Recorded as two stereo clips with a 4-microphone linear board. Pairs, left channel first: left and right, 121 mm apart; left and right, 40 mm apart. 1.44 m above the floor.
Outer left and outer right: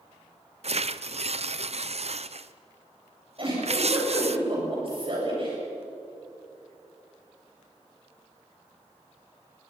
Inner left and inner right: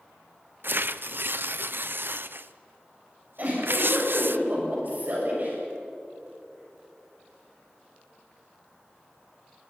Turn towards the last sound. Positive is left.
turn(degrees=-45)  # may be behind; listen again after turning